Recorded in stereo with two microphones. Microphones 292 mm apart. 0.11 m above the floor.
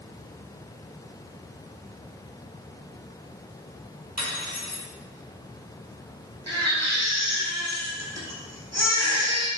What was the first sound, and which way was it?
Cutlery clinking, 65° right (ahead or behind).